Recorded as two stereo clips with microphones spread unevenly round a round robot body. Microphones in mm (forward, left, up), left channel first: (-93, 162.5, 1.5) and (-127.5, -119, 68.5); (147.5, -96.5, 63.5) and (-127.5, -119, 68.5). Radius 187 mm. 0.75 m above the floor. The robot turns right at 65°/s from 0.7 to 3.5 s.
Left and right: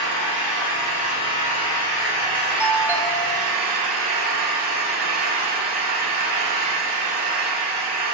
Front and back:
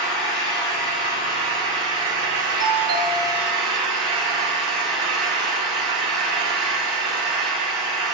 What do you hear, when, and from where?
0.0 s an engine running: 20° left, 4.5 m; by 8.1 s 155° right, 4.5 m
2.6 s a doorbell: 150° left, 1.5 m; by 3.6 s 150° right, 1.5 m